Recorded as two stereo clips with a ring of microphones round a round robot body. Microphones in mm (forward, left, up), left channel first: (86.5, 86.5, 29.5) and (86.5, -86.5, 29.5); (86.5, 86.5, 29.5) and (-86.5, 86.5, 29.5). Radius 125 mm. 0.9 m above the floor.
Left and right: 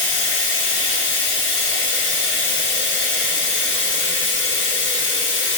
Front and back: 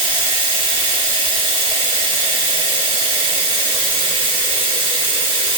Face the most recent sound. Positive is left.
turn(degrees=120)